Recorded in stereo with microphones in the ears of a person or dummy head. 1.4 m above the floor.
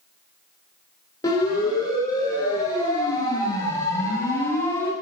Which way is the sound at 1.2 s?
20° left (ahead or behind).